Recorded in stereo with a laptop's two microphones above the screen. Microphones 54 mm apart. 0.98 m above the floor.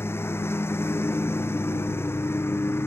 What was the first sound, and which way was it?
A lawn mower, 50° left (ahead or behind).